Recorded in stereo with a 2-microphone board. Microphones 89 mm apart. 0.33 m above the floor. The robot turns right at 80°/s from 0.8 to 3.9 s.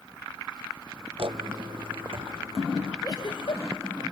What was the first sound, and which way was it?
Footsteps, 65° right (ahead or behind).